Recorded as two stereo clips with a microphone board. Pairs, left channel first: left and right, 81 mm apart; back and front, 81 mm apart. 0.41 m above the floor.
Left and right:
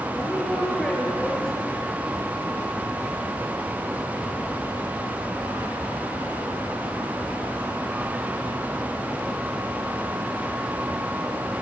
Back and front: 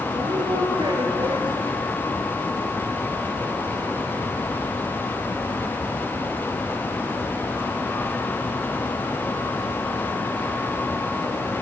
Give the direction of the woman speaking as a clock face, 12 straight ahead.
12 o'clock.